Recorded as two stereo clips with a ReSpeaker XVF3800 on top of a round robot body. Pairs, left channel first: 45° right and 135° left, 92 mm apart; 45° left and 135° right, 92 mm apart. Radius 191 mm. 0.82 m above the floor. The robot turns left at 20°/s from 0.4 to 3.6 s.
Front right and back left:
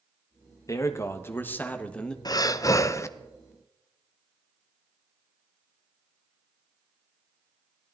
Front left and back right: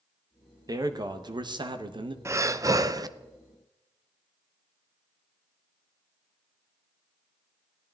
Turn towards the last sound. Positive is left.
turn(degrees=-110)